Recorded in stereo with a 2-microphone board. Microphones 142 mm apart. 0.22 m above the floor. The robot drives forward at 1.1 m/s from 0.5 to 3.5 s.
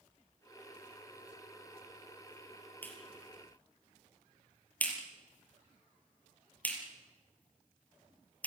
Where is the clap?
15° left (ahead or behind), 4.5 m; by 8.5 s 10° left (ahead or behind), 5.5 m.